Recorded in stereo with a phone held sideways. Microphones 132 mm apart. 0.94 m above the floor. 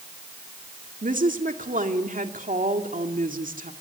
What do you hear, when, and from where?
1.0 s a woman speaking: 80° right, 2 m